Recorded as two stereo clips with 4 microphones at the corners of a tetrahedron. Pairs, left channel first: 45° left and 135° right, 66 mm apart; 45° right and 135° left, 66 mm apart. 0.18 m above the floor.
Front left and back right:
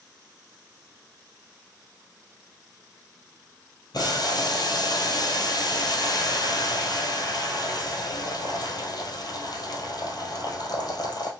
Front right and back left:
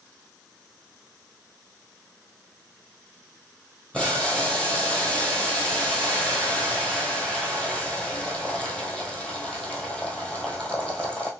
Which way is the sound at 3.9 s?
30° left.